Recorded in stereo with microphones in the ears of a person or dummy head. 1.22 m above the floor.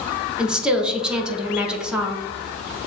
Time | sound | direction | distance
0.4 | a woman speaking | 5° right (ahead or behind) | 0.7 m